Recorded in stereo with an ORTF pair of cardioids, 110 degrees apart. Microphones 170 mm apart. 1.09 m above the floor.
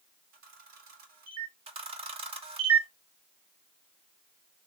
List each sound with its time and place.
0.3 s a camera shutter: 65° right, 1.7 m
1.7 s a camera shutter: 35° right, 0.9 m